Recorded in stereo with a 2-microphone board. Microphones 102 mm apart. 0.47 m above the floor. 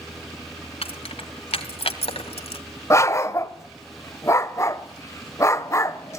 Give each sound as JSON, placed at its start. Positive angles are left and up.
{"t": 0.8, "sound": "keys jangling", "side_deg": 70, "distance_m": 2.5}
{"t": 2.9, "sound": "a dog barking", "side_deg": 30, "distance_m": 0.7}